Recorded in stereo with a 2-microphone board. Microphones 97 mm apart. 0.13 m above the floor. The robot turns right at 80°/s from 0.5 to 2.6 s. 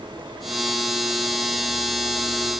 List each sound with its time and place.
Only background noise.